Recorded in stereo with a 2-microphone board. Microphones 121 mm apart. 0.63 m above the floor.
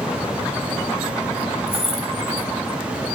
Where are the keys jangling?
55° left (ahead or behind), 2 m.